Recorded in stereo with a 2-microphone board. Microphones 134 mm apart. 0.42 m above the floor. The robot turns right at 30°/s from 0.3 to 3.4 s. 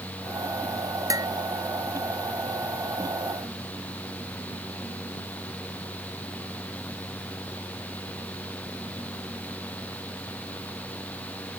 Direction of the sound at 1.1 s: 25° right (ahead or behind).